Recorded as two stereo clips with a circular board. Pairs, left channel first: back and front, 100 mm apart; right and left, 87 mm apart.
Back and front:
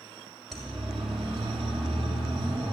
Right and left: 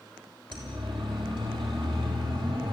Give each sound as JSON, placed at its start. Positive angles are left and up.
{"t": 0.5, "sound": "a siren", "azimuth_deg": 90, "distance_m": 6.5}